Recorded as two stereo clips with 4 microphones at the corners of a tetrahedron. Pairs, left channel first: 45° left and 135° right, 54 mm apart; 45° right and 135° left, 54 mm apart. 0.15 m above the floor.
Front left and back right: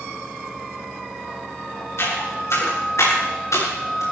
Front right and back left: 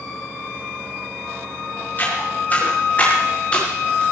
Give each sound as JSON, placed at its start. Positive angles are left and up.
{"t": 2.0, "sound": "footsteps", "azimuth_deg": 10, "distance_m": 9.5}